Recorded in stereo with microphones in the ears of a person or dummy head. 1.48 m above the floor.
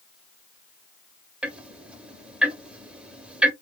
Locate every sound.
1.4 s ticking: 10° right (ahead or behind), 0.8 m